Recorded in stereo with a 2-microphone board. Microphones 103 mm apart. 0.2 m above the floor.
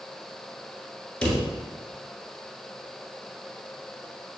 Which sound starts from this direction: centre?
A drawer, at 1.2 s.